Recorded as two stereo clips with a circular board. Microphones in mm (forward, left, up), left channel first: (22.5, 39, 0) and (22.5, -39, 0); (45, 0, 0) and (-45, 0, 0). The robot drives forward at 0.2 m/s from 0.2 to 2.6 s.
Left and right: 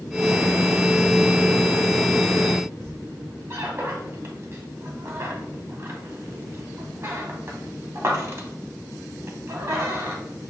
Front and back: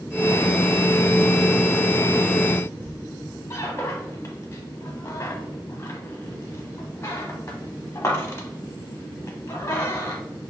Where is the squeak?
50° right, 0.8 m.